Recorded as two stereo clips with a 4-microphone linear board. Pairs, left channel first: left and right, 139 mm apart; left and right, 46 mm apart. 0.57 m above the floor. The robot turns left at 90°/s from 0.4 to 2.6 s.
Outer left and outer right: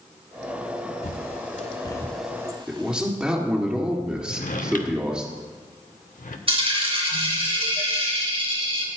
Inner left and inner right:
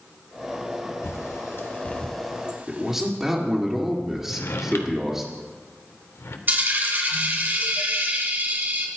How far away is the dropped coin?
About 2 m.